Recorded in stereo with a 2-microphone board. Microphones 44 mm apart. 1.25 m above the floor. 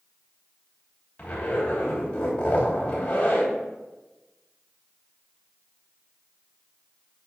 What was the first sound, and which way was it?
A zipper, 30° left (ahead or behind).